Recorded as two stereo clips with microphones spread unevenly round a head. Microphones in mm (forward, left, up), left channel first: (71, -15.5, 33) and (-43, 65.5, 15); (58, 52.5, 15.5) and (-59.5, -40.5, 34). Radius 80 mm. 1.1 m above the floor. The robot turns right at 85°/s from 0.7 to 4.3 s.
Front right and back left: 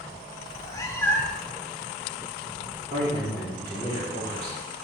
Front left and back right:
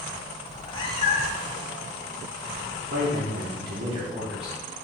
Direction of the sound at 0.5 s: 20° right.